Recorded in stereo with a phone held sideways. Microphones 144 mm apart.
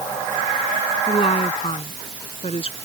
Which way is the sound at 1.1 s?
45° left (ahead or behind).